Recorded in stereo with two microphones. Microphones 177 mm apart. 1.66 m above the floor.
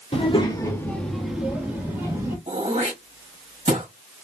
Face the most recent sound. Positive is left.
turn(degrees=-40)  # may be behind; listen again after turning